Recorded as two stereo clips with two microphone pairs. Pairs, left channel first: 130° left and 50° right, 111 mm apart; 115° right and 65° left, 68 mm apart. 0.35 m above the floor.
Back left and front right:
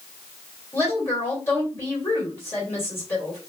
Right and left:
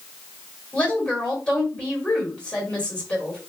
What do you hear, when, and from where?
0.7 s a woman speaking: straight behind, 1.7 m